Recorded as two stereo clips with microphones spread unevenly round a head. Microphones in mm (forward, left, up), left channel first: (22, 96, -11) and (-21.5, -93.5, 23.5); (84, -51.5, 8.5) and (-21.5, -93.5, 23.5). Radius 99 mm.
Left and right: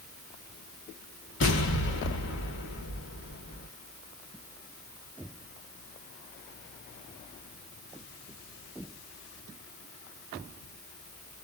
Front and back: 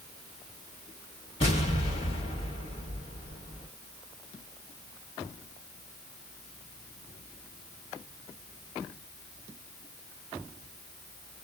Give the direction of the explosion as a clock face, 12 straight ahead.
10 o'clock.